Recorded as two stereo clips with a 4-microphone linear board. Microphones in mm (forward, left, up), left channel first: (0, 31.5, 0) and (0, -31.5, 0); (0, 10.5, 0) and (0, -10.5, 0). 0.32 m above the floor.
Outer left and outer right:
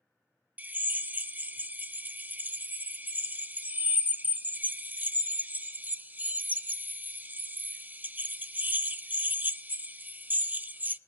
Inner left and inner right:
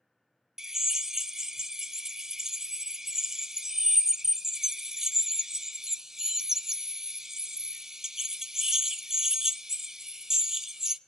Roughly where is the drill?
Right.